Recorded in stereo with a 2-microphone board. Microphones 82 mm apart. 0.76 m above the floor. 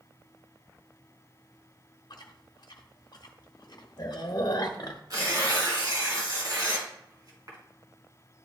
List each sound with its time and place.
2.1 s chewing: 55° left (ahead or behind), 0.8 m
5.1 s tearing paper: 50° right (ahead or behind), 2.5 m